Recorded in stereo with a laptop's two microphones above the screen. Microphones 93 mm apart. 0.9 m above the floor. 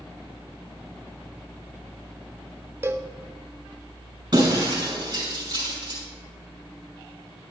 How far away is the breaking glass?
About 5.5 m.